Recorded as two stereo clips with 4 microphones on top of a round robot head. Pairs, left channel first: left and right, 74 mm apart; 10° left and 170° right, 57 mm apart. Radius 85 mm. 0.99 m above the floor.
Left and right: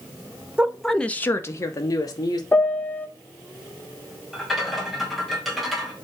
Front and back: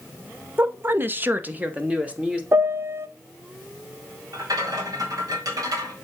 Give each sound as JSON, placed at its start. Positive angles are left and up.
{"t": 0.6, "sound": "a woman speaking", "azimuth_deg": -155, "distance_m": 0.7}
{"t": 2.5, "sound": "a piano", "azimuth_deg": 155, "distance_m": 0.5}
{"t": 4.3, "sound": "a rattle", "azimuth_deg": 180, "distance_m": 2.0}